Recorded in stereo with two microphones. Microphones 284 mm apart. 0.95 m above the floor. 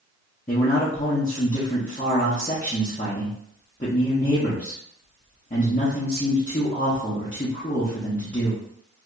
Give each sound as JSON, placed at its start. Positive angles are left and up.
{"t": 0.5, "sound": "a man speaking", "side_deg": 30, "distance_m": 0.8}